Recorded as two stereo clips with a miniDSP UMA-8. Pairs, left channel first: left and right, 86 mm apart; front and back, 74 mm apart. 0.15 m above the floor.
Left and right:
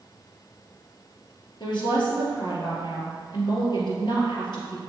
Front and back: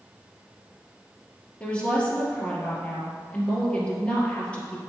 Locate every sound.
1.6 s a woman speaking: 75° left, 2.5 m